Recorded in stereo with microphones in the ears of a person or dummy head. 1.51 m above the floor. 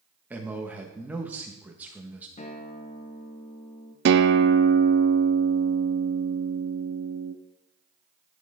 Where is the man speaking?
10° right (ahead or behind), 1.5 m.